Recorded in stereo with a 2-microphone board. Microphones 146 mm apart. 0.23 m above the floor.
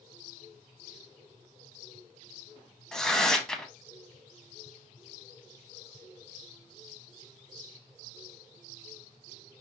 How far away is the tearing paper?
About 0.6 m.